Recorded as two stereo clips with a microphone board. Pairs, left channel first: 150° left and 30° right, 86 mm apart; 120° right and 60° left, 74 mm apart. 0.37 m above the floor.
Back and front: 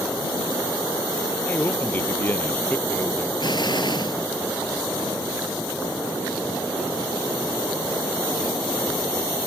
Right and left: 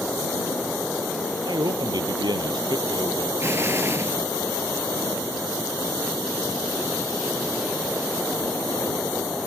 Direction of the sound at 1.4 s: 80° left.